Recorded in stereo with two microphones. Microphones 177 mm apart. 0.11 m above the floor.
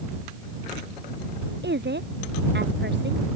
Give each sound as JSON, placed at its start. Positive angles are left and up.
{"t": 1.6, "sound": "a woman speaking", "side_deg": -80}